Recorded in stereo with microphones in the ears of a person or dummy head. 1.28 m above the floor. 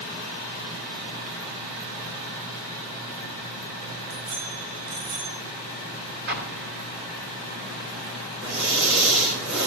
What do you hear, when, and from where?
4.1 s a bicycle bell: 70° right (ahead or behind), 9 m; by 5.4 s 75° right (ahead or behind), 9 m
6.3 s an explosion: 55° right (ahead or behind), 2.5 m
8.4 s breathing: 65° right (ahead or behind), 3 m